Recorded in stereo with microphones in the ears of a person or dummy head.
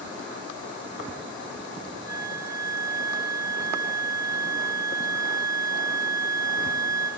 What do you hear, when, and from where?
2.1 s a flute: 20° right (ahead or behind), 1.4 m